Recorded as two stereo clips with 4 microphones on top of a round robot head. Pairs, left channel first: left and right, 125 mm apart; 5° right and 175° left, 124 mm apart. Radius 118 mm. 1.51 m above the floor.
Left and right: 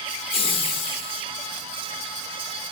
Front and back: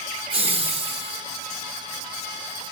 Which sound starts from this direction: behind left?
Laughter, at 0.3 s.